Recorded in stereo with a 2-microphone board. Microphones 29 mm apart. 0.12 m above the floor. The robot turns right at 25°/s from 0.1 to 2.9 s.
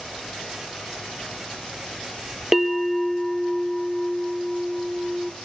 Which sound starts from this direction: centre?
A bell, at 2.5 s.